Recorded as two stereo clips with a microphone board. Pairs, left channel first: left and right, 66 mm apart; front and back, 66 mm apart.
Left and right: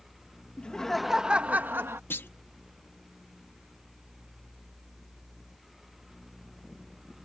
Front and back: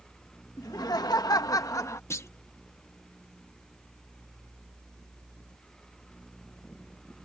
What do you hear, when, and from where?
0.6 s laughter: 15° left; by 2.0 s 40° right
2.1 s a clunk: 40° left